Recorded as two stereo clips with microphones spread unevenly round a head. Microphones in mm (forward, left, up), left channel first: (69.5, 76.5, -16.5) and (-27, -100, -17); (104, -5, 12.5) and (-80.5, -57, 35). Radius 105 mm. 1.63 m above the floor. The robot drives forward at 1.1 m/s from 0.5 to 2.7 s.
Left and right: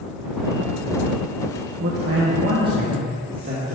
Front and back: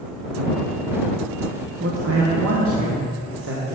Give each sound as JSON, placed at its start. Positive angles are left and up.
{"t": 1.8, "sound": "a man speaking", "azimuth_deg": -150, "distance_m": 1.1}